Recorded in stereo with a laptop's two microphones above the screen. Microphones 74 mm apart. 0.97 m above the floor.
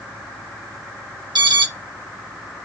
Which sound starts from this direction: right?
An alarm, at 1.4 s.